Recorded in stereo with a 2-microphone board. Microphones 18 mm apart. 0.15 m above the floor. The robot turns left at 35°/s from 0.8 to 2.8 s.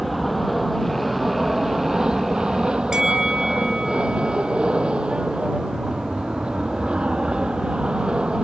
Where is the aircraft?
5° right; by 8.4 s 75° right.